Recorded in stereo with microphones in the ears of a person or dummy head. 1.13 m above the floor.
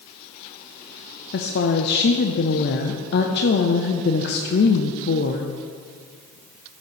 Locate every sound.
1.3 s a woman speaking: 50° left (ahead or behind), 0.6 m